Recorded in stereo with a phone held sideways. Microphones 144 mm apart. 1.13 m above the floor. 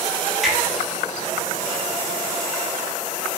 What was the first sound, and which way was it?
A finger snap, centre (ahead or behind).